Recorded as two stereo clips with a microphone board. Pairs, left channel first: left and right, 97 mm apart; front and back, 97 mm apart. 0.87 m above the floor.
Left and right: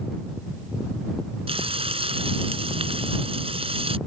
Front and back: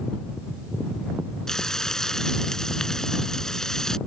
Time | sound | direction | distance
1.5 | frying | 85° right | ?